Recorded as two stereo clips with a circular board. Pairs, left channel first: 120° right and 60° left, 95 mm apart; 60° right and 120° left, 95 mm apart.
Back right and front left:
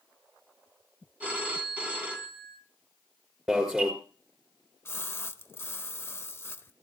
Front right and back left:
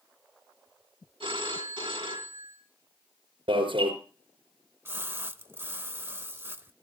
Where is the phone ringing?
135° left, 3 m.